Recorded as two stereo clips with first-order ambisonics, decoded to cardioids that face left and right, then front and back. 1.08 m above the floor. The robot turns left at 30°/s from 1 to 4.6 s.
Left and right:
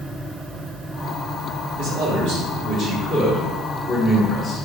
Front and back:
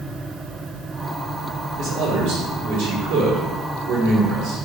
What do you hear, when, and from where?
1.8 s a man speaking: 125° right, 2.5 m; by 4.6 s 150° left, 2.5 m